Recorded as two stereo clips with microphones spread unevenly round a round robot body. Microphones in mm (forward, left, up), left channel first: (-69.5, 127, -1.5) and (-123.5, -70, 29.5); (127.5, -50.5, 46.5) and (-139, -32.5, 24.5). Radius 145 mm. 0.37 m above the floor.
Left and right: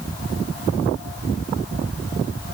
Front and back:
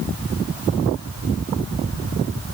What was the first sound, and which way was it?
Only background noise.